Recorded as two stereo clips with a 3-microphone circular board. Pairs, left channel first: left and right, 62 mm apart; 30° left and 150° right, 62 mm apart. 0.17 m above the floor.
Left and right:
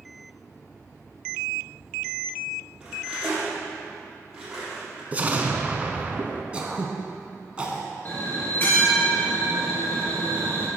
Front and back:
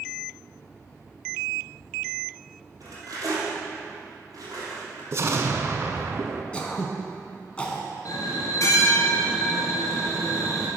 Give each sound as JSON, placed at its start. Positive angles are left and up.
{"t": 2.8, "sound": "cutlery clinking", "azimuth_deg": -170, "distance_m": 3.0}
{"t": 5.1, "sound": "an explosion", "azimuth_deg": -145, "distance_m": 0.7}
{"t": 6.5, "sound": "throat clearing", "azimuth_deg": -30, "distance_m": 0.9}
{"t": 8.1, "sound": "a bell", "azimuth_deg": 40, "distance_m": 2.0}